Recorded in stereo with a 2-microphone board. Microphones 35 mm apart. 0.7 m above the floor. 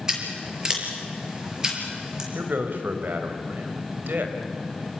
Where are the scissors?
20° right (ahead or behind), 5 m.